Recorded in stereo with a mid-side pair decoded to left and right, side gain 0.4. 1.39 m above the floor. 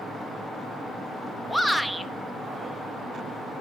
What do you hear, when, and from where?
1.5 s a shout: straight ahead, 1.4 m